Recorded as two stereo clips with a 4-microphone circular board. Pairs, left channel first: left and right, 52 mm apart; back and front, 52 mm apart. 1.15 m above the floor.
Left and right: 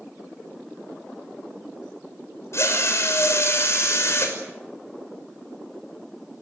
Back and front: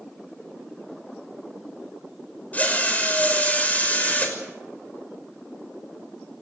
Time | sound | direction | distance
2.5 | a drill | 120° left | 6 m